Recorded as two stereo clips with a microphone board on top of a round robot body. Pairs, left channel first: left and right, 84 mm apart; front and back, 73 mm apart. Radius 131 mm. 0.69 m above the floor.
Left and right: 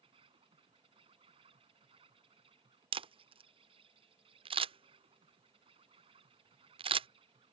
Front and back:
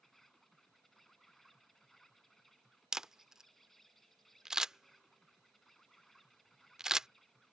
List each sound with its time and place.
0.0 s an insect: 85° right
2.9 s a camera shutter: 95° right